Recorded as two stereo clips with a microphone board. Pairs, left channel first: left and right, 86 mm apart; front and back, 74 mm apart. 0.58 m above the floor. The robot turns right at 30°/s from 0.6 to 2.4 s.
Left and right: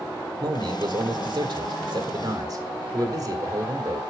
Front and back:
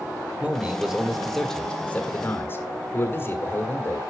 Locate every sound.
0.4 s a man speaking: 110° right, 1.7 m; by 4.0 s 55° right, 1.7 m